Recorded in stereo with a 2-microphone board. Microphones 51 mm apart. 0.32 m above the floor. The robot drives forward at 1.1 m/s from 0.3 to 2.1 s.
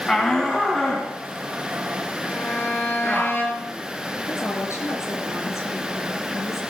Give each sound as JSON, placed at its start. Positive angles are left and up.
{"t": 0.1, "sound": "a shout", "side_deg": 10, "distance_m": 2.5}
{"t": 2.2, "sound": "a violin", "side_deg": 45, "distance_m": 6.5}
{"t": 4.3, "sound": "a woman speaking", "side_deg": 75, "distance_m": 6.5}